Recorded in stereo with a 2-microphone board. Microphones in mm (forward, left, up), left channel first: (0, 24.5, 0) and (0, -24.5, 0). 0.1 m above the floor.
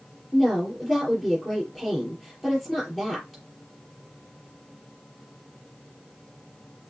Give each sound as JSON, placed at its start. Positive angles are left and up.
{"t": 0.3, "sound": "a woman speaking", "side_deg": 10, "distance_m": 4.0}